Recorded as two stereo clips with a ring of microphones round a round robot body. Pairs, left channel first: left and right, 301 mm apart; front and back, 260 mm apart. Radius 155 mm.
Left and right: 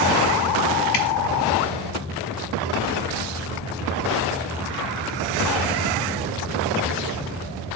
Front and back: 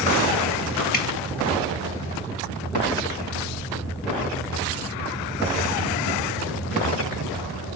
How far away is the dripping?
About 1.0 m.